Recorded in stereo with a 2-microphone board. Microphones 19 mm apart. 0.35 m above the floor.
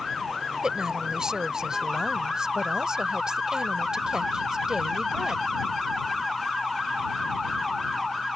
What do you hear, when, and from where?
0.6 s a woman speaking: 40° right (ahead or behind)